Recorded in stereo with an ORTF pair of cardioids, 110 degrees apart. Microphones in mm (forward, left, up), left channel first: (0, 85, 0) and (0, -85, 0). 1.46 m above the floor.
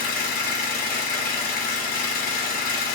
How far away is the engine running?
About 0.8 m.